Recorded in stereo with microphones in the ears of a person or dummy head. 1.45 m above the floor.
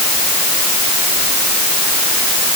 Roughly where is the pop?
I don't hear a pop.